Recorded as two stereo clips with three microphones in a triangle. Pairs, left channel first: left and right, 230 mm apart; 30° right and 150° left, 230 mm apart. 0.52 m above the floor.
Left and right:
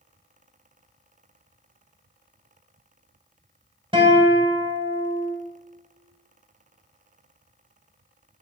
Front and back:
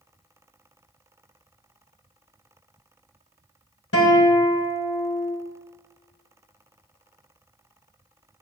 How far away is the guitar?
About 1.8 m.